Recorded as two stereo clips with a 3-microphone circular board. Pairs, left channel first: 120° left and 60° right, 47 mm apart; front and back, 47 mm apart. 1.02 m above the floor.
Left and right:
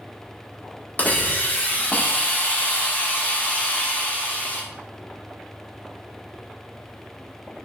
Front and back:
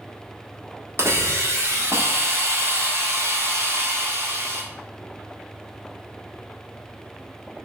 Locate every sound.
1.0 s a hiss: 170° left, 1.5 m